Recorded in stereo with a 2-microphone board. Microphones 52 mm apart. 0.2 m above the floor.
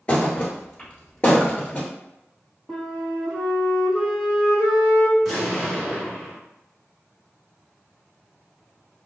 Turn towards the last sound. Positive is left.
turn(degrees=-5)  # may be behind; listen again after turning